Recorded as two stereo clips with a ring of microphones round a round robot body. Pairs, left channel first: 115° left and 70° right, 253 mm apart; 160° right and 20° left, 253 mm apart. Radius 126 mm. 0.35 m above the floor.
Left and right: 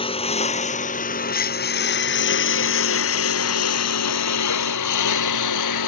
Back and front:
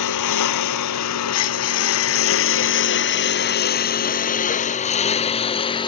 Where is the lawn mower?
175° right; by 5.9 s 130° left.